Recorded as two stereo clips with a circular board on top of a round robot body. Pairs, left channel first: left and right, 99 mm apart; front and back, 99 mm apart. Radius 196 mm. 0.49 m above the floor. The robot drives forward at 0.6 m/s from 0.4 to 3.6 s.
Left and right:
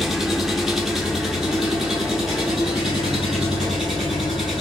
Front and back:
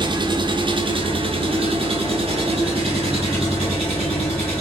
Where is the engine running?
Straight behind, 1.1 m.